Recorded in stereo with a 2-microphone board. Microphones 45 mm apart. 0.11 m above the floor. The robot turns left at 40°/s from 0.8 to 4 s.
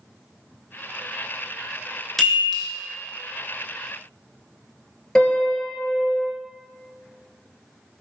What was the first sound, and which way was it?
A chime, 10° left (ahead or behind).